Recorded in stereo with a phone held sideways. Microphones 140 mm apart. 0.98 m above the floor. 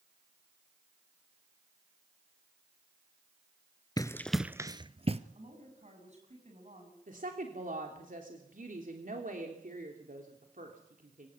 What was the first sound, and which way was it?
Running footsteps, 25° left (ahead or behind).